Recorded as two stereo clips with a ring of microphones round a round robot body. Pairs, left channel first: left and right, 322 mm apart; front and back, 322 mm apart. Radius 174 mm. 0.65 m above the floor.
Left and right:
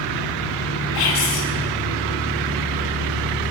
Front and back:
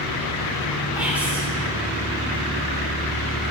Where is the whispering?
95° left, 1.4 m.